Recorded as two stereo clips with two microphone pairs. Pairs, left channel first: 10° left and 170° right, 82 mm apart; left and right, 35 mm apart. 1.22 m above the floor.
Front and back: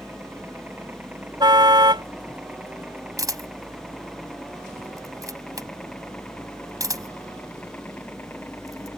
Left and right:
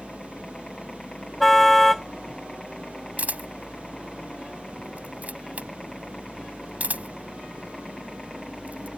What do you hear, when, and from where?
0.0 s a helicopter: 145° left; by 9.0 s 15° left
1.4 s a car horn: 175° left
3.2 s a camera shutter: 130° right